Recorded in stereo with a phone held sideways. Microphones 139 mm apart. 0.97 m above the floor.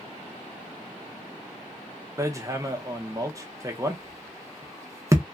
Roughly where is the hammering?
Right.